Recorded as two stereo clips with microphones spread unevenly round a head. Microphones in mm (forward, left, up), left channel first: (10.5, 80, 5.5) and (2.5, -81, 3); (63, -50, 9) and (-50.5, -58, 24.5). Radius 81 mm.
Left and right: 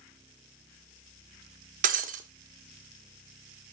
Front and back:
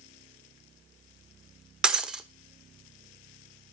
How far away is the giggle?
I don't hear a giggle.